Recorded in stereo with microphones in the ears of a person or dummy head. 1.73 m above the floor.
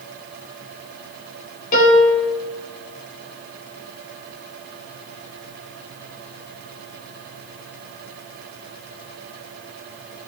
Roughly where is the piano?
Left.